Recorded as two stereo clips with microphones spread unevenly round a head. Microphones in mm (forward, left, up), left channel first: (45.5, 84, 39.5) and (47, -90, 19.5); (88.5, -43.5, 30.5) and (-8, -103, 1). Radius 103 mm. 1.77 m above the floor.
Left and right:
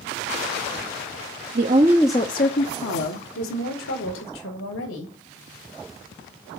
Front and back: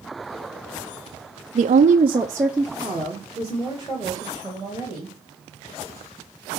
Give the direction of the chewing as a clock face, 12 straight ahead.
I don't hear chewing.